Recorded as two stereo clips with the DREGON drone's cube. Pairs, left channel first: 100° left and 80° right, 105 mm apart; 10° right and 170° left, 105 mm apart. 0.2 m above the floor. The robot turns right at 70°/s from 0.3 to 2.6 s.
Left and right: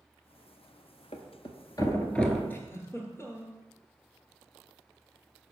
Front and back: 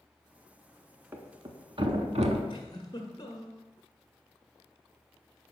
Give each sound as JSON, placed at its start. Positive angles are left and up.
{"t": 1.1, "sound": "a thud", "azimuth_deg": 100, "distance_m": 0.7}
{"t": 2.5, "sound": "a giggle", "azimuth_deg": 30, "distance_m": 1.1}